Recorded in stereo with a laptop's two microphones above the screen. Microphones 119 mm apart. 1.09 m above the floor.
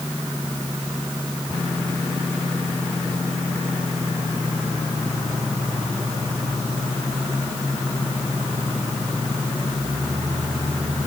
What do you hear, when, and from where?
Only background noise.